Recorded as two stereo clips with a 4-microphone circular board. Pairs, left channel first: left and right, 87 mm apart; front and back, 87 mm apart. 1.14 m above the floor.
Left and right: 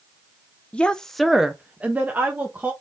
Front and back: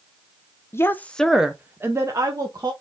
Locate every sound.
0.7 s a woman speaking: 25° left, 0.6 m; by 2.7 s 150° right, 1.0 m